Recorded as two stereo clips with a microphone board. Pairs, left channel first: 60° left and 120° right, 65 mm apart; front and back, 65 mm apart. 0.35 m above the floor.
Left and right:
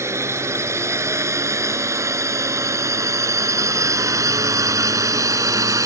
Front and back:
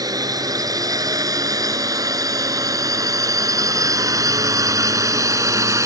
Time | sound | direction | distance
0.0 | a drone | 165° right | ?